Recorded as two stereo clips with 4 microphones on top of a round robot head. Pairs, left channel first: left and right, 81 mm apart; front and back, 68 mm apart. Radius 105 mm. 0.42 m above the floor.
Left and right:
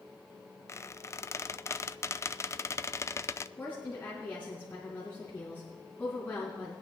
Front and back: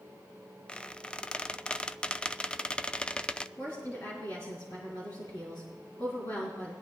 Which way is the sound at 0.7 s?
65° left.